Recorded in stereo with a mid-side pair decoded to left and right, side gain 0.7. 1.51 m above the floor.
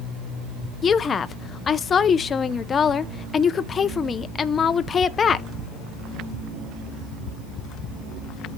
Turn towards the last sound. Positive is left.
turn(degrees=30)